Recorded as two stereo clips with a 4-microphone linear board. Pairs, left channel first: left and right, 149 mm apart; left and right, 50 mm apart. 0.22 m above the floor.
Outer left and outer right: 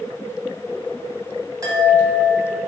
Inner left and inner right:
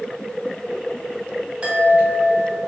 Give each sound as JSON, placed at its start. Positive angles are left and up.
{"t": 1.6, "sound": "a chime", "side_deg": -25, "distance_m": 1.4}